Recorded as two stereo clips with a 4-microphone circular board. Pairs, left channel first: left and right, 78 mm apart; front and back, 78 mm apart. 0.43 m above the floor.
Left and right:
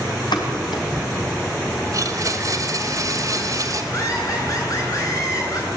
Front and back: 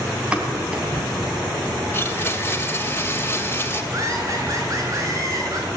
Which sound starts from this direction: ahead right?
A blender, at 1.9 s.